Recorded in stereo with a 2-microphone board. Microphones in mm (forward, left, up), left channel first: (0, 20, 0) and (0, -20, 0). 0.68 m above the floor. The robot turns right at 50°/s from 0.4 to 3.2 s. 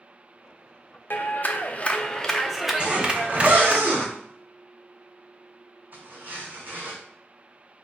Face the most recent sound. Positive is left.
turn(degrees=-45)  # may be behind; listen again after turning